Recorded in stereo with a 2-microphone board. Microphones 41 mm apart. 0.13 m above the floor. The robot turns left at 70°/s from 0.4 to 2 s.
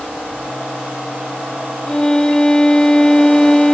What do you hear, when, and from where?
1.9 s a violin: 25° left (ahead or behind), 0.6 m; by 3.8 s 15° left (ahead or behind), 0.6 m